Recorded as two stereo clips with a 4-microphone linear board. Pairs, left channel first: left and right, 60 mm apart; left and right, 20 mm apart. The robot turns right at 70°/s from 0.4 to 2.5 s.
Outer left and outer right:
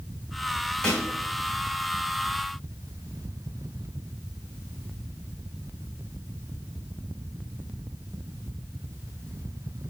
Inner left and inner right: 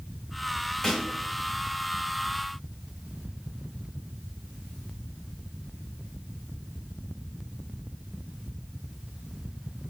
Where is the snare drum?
15° left (ahead or behind), 1.5 m; by 1.1 s 5° left (ahead or behind), 1.5 m.